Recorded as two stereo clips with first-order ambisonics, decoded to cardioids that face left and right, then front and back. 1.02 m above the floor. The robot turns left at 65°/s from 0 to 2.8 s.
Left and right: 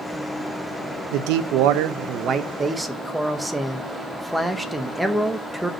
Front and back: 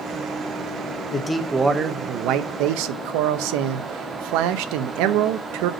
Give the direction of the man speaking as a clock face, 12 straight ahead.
2 o'clock.